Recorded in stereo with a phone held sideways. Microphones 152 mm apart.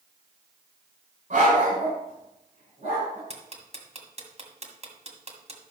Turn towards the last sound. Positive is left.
turn(degrees=-45)  # may be behind; listen again after turning